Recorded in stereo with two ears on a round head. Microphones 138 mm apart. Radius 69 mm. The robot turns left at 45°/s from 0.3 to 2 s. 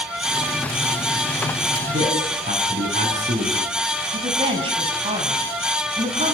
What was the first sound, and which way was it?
A man speaking, 50° right (ahead or behind).